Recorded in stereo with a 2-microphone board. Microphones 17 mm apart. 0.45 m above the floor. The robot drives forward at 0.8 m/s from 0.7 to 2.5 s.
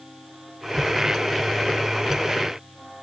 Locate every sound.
Only background noise.